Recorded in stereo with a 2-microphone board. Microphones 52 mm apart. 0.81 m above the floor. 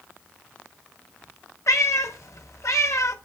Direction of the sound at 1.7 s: 70° left (ahead or behind).